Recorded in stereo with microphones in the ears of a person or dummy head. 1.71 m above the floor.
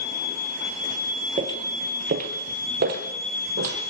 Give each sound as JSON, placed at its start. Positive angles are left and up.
{"t": 1.4, "sound": "footsteps", "side_deg": -30, "distance_m": 2.0}